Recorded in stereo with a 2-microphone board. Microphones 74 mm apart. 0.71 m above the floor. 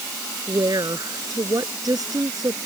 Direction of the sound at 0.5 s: 65° right (ahead or behind).